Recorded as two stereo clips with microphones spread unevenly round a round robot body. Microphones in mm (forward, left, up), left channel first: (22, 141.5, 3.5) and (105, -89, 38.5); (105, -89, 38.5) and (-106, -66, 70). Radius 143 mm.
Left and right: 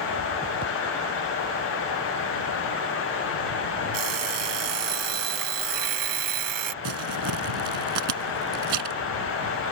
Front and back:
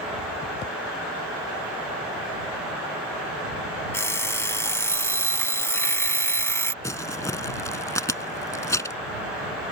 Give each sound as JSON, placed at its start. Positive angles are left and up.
{"t": 3.9, "sound": "an alarm clock", "azimuth_deg": -85}
{"t": 6.8, "sound": "crumpling", "azimuth_deg": -85}